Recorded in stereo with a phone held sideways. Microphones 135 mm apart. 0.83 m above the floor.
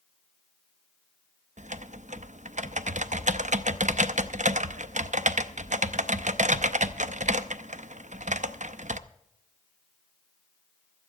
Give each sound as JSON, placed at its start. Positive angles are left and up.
{"t": 1.6, "sound": "typing on a keyboard", "side_deg": -65, "distance_m": 0.5}